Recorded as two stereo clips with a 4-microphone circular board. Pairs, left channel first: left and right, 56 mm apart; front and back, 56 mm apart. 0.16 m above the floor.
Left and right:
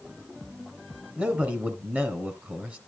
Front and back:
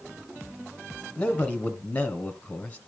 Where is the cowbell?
No cowbell in this recording.